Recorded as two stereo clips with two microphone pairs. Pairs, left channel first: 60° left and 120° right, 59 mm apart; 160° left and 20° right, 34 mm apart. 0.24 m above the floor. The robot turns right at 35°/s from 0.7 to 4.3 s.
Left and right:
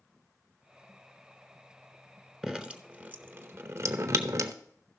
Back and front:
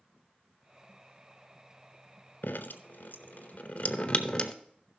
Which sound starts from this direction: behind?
Dripping, at 2.4 s.